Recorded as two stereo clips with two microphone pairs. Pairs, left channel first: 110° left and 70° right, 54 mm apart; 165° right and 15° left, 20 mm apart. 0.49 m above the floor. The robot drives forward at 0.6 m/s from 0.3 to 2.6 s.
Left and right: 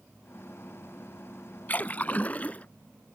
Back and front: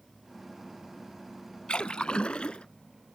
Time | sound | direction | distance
1.7 | a splash | 165° left | ?